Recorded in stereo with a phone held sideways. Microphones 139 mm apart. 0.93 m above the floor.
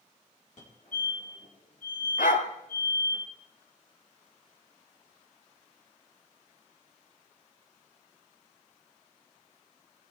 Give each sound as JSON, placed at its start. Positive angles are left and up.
{"t": 0.6, "sound": "a fire alarm", "side_deg": 60, "distance_m": 4.5}
{"t": 2.2, "sound": "a dog barking", "side_deg": 75, "distance_m": 1.7}